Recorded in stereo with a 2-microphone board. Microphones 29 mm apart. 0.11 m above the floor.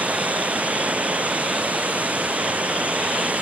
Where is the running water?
55° right (ahead or behind).